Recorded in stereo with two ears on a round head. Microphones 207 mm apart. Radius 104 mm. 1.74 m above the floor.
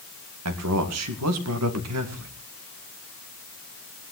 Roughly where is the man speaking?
Right.